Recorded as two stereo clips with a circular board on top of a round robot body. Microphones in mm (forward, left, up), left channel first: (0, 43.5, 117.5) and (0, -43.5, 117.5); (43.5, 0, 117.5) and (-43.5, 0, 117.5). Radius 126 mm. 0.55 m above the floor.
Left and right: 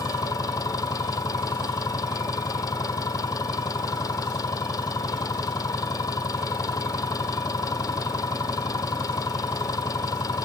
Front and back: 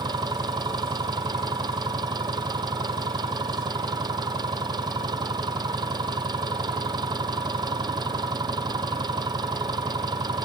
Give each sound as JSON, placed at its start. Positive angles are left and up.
{"t": 0.0, "sound": "an engine running", "azimuth_deg": 140}